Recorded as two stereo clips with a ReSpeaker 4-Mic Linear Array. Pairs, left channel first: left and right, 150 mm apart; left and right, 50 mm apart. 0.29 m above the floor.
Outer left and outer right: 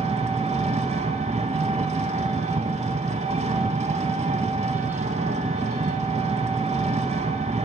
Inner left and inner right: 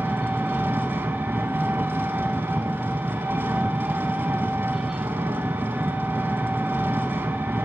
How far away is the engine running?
About 0.7 m.